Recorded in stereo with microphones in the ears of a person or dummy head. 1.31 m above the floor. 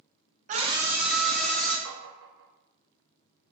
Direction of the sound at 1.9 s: 65° right (ahead or behind).